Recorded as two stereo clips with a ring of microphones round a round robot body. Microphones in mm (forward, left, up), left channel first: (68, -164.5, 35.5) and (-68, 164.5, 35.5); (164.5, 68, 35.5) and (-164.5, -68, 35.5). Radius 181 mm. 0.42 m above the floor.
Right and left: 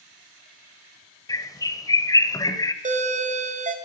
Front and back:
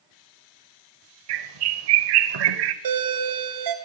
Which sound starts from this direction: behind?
A doorbell, at 2.8 s.